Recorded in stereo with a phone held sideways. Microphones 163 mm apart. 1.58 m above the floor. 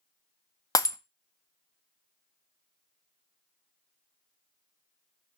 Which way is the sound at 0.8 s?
20° left (ahead or behind).